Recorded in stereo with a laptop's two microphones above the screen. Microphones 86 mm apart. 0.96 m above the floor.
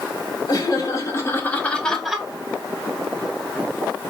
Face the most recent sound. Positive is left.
turn(degrees=-10)  # may be behind; listen again after turning